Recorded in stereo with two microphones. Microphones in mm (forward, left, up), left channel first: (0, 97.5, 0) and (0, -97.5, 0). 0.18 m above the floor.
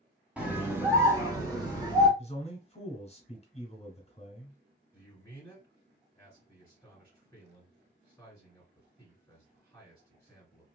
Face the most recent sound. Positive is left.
turn(degrees=10)  # may be behind; listen again after turning